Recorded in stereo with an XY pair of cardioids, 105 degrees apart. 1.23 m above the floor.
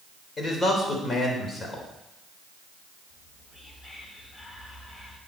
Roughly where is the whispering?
Ahead left.